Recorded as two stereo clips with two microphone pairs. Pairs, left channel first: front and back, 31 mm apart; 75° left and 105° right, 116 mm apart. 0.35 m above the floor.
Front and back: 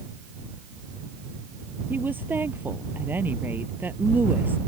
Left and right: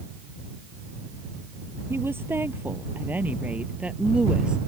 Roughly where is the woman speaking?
Behind.